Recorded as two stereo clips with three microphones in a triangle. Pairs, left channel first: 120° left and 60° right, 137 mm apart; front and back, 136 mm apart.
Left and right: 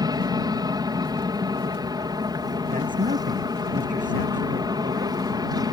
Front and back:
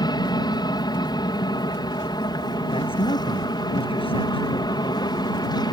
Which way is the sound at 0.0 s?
25° right.